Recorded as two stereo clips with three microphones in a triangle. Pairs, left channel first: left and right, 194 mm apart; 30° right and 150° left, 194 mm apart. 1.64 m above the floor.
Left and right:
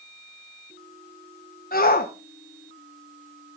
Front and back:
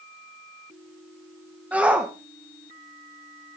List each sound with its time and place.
1.7 s a shout: 70° left, 1.0 m